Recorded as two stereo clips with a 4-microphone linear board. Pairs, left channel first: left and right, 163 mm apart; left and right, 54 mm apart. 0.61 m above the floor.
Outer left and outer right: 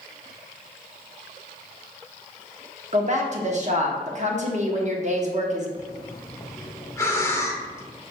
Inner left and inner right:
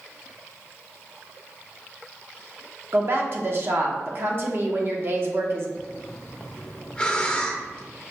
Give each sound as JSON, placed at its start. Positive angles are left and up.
{"t": 2.9, "sound": "a woman speaking", "side_deg": -50, "distance_m": 0.8}
{"t": 5.8, "sound": "breathing", "side_deg": 20, "distance_m": 0.7}